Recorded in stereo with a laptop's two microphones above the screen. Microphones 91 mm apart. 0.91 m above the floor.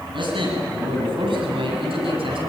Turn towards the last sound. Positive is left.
turn(degrees=-75)  # may be behind; listen again after turning